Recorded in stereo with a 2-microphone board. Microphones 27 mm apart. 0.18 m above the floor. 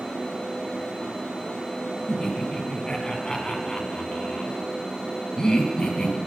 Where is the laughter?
25° left (ahead or behind), 1.1 m.